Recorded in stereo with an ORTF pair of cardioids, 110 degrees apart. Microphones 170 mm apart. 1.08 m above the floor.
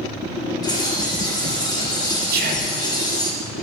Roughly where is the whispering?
Ahead right.